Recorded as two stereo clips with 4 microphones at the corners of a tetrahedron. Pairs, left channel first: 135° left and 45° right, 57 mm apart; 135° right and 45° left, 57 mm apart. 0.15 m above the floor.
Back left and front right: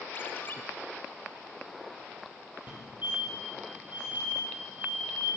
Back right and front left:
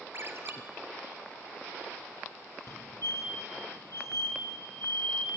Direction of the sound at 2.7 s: 100° right.